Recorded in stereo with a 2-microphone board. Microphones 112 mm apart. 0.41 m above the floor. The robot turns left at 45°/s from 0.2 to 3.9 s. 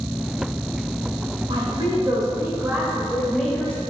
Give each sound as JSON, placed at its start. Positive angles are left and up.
{"t": 1.5, "sound": "a woman speaking", "azimuth_deg": -95, "distance_m": 2.0}